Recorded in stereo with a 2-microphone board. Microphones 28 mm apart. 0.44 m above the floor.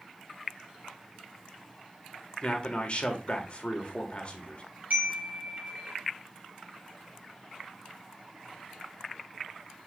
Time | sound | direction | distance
2.4 | a man speaking | 40° left (ahead or behind) | 1.6 m
4.9 | a chime | 55° right (ahead or behind) | 4 m